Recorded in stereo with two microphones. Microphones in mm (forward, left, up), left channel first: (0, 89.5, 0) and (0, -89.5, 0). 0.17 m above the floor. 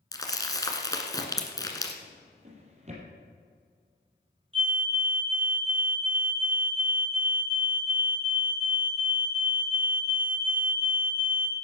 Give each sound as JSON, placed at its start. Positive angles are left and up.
{"t": 0.1, "sound": "crumpling", "side_deg": 20, "distance_m": 1.6}
{"t": 2.0, "sound": "a drawer", "side_deg": -40, "distance_m": 3.5}
{"t": 4.5, "sound": "a fire alarm", "side_deg": -30, "distance_m": 2.5}